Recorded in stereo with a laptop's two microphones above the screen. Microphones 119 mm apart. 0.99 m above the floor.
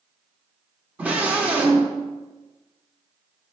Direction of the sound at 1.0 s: 10° right (ahead or behind).